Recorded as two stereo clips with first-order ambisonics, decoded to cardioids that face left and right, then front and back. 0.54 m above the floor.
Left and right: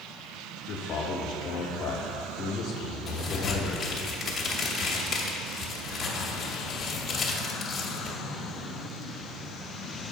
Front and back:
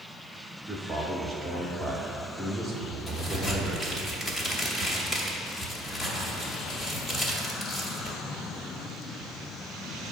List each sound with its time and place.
0.7 s a man speaking: 95° left, 0.7 m
3.1 s a crack: 40° left, 0.9 m